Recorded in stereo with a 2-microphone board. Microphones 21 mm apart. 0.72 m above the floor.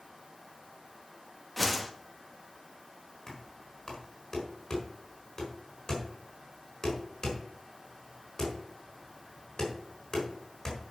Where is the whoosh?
5° left (ahead or behind), 1.2 m.